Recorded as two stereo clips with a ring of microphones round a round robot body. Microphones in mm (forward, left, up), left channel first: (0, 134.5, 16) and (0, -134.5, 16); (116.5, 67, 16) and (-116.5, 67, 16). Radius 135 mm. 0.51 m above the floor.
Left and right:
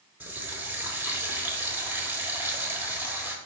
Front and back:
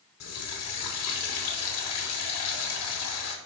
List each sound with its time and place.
0.2 s a running tap: 10° right, 1.2 m